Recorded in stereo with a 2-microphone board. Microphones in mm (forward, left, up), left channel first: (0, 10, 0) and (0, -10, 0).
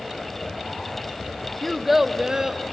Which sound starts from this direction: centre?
A child speaking, at 1.6 s.